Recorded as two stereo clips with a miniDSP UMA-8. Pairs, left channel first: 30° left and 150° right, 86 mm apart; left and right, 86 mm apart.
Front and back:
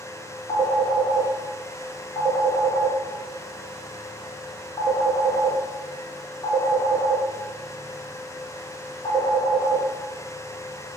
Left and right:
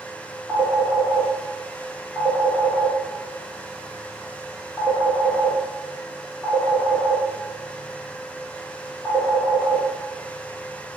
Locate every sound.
0.5 s a phone ringing: 30° left, 0.9 m